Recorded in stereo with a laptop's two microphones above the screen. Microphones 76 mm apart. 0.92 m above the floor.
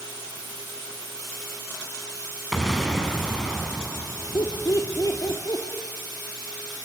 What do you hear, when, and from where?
2.5 s an explosion: centre (ahead or behind), 6 m
4.3 s laughter: 55° left (ahead or behind), 3 m